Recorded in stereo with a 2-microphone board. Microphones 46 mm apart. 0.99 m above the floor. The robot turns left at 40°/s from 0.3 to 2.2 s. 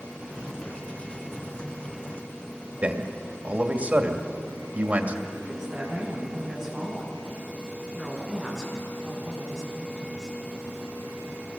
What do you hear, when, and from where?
2.8 s a man speaking: 35° right (ahead or behind), 2 m
5.3 s a woman speaking: 15° right (ahead or behind), 8 m